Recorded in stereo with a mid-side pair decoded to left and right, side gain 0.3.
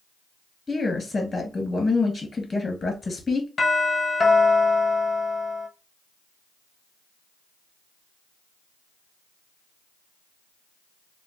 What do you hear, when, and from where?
0.7 s a woman speaking: 45° left, 1.7 m
3.6 s a doorbell: 60° left, 1.6 m